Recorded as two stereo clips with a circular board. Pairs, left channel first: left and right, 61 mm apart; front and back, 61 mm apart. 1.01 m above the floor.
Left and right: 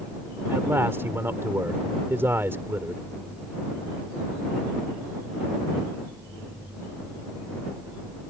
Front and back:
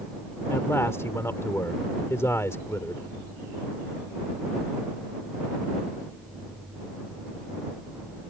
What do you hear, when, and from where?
0.5 s a man speaking: 40° right